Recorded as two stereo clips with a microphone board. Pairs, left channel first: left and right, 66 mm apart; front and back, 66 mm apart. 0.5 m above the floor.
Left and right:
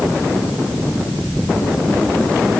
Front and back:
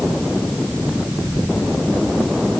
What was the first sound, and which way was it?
Only background noise.